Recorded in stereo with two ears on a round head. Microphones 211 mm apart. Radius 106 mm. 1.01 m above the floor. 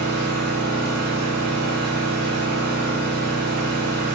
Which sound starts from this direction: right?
An engine running, at 0.0 s.